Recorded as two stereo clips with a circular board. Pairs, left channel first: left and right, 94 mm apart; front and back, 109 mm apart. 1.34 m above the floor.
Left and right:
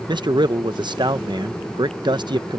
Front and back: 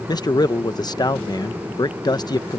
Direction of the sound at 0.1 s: 50° right.